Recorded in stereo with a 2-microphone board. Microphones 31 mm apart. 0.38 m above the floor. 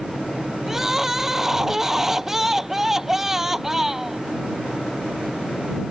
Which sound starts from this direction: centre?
Crying, at 0.7 s.